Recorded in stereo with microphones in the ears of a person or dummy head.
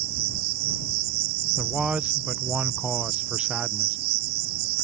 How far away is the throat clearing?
No throat clearing in this recording.